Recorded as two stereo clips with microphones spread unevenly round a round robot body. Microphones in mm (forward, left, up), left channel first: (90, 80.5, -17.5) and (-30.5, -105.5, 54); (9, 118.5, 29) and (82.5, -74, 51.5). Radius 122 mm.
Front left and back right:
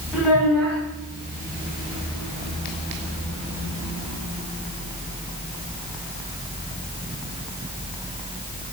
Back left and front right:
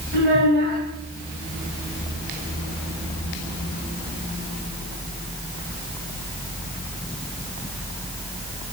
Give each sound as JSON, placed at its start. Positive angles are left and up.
{"t": 0.1, "sound": "a child speaking", "azimuth_deg": -35, "distance_m": 3.5}